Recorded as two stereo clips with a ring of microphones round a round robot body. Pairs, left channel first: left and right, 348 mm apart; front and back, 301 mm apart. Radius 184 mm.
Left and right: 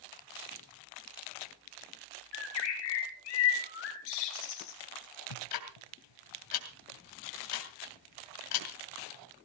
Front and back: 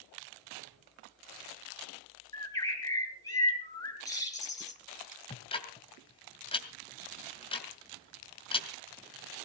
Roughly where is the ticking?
Left.